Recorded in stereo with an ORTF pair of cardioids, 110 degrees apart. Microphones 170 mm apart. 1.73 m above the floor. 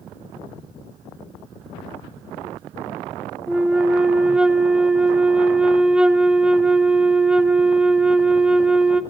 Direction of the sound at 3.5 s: 5° right.